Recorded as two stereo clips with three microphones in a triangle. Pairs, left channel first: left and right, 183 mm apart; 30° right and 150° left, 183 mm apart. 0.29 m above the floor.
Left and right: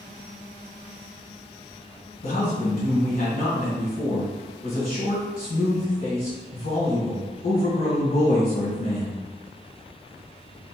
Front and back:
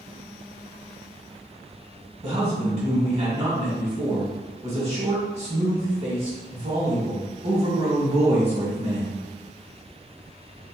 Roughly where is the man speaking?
Left.